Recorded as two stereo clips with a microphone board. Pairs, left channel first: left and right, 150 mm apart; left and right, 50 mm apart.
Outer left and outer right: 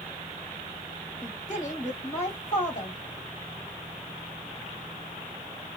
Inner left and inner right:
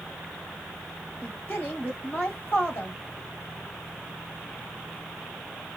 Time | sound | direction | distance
1.2 | a woman speaking | 50° left (ahead or behind) | 1.3 m